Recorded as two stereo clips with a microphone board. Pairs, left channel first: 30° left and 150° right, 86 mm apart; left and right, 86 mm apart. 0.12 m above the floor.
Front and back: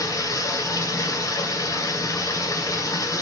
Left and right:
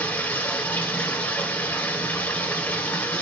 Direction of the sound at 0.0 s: 35° left.